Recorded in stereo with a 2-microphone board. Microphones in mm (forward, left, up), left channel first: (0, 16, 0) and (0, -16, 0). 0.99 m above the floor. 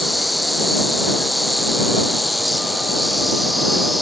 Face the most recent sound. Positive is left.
turn(degrees=0)  # may be behind; listen again after turning